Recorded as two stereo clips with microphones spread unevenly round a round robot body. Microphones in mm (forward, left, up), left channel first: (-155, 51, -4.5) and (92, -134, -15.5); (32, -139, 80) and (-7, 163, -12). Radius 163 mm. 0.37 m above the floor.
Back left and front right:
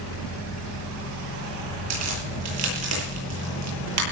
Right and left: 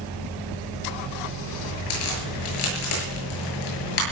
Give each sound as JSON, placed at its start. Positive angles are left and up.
{"t": 1.9, "sound": "a crack", "azimuth_deg": -75, "distance_m": 9.5}